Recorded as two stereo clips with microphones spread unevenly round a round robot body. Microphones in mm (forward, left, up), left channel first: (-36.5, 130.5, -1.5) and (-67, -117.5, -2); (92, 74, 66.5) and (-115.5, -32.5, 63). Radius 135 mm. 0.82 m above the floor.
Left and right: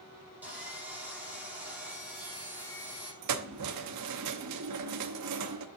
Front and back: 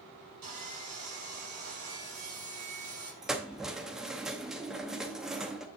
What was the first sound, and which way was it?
Sawing, straight behind.